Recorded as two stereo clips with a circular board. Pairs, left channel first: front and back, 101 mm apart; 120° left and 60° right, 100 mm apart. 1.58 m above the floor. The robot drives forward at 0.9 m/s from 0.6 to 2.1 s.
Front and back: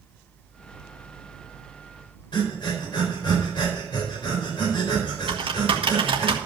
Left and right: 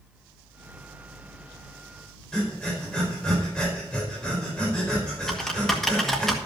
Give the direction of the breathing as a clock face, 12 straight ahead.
11 o'clock.